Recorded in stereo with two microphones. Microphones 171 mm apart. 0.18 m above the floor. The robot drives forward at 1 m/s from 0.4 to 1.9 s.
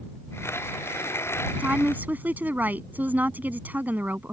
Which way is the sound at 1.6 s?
10° right (ahead or behind).